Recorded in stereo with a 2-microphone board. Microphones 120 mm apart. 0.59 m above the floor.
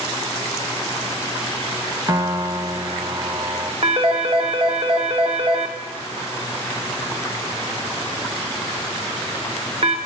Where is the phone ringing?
55° right (ahead or behind), 0.9 m.